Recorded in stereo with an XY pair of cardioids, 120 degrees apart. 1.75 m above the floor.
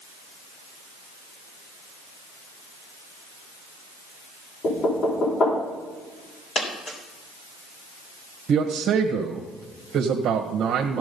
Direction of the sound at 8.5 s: 55° right.